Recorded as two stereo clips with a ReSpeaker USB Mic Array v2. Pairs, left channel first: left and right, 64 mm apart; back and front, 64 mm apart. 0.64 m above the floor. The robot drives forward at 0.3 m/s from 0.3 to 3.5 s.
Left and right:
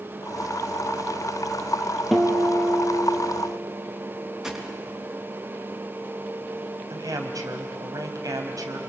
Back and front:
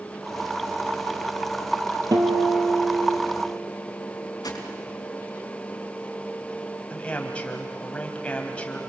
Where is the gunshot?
175° right, 3.5 m.